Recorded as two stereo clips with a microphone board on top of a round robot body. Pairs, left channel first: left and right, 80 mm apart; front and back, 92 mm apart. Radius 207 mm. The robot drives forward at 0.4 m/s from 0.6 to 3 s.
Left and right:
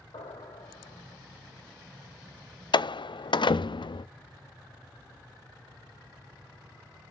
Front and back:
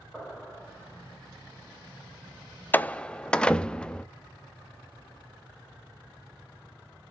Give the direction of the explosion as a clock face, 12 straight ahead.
9 o'clock.